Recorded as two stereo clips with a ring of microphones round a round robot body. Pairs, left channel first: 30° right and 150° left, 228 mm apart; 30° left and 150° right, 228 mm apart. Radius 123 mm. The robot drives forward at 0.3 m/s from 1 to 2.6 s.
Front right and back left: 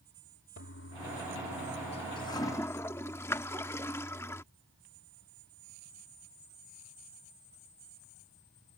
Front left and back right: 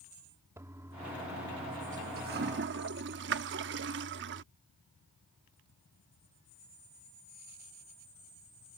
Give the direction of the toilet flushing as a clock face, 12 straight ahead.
2 o'clock.